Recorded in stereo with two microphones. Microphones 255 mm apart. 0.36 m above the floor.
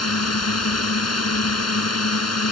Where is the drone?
70° left (ahead or behind).